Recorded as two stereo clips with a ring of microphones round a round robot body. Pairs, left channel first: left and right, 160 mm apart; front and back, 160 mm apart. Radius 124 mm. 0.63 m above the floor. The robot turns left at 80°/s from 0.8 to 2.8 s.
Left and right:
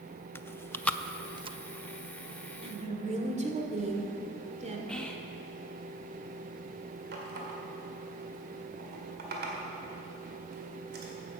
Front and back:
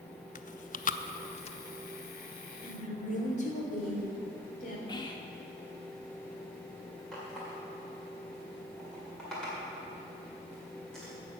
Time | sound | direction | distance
0.3 | chewing | 15° left | 0.6 m
2.6 | a woman speaking | 30° right | 1.8 m
4.9 | whispering | 10° left | 0.8 m
7.1 | a running tap | 90° right | 1.8 m